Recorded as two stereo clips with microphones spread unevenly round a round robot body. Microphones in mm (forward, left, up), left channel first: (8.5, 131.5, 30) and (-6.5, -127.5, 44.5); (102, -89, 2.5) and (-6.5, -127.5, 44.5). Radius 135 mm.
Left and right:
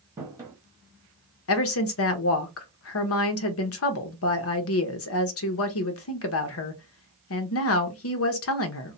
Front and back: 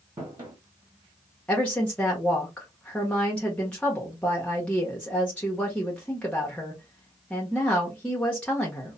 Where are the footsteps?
165° right, 1.2 m.